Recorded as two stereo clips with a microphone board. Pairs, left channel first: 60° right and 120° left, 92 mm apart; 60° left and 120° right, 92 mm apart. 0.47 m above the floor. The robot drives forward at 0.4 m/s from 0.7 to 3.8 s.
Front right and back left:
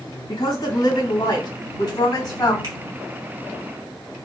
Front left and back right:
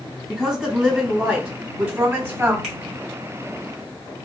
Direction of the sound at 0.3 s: 30° right.